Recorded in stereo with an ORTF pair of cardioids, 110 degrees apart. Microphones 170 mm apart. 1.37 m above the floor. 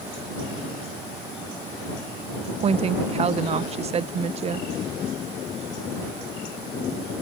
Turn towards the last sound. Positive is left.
turn(degrees=-40)